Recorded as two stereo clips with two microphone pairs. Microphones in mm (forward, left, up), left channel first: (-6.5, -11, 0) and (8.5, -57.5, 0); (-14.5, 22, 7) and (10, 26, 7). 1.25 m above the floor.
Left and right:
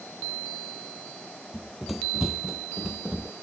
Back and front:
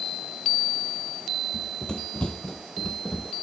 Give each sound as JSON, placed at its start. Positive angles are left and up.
{"t": 1.5, "sound": "running footsteps", "azimuth_deg": -165}